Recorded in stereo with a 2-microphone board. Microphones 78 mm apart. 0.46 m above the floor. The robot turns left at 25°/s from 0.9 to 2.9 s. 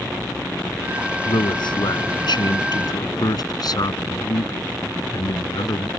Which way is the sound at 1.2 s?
105° left.